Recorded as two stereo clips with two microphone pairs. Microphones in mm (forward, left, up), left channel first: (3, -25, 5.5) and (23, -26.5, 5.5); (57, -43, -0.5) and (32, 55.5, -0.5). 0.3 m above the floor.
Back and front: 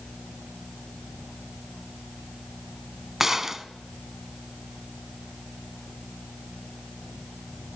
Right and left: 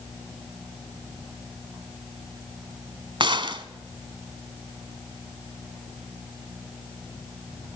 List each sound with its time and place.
3.2 s a gunshot: 65° left, 1.1 m